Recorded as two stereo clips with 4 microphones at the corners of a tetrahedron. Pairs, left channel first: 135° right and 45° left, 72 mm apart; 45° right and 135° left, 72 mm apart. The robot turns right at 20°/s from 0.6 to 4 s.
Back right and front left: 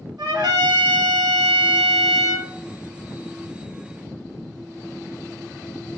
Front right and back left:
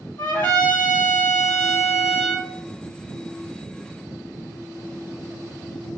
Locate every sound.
0.2 s a trumpet: 20° left, 1.2 m; by 2.5 s 55° left, 1.2 m